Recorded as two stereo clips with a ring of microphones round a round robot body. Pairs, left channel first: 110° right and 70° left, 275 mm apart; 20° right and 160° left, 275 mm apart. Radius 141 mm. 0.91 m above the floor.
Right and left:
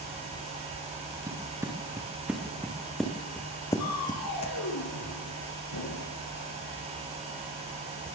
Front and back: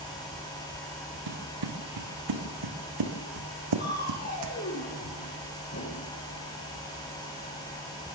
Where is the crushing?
80° right, 6 m.